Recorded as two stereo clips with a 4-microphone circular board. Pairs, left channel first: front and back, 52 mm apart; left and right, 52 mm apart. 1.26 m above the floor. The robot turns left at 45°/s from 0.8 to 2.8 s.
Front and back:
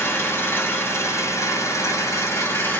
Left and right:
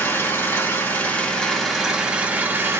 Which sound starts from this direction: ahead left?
An engine running, at 0.0 s.